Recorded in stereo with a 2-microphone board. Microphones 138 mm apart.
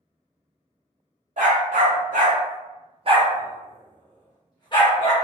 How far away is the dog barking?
About 1.3 m.